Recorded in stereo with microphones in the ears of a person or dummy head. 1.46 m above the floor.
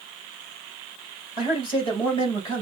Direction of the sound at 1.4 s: 30° left (ahead or behind).